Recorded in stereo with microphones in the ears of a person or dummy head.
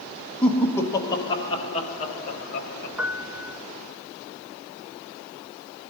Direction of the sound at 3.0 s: 10° right (ahead or behind).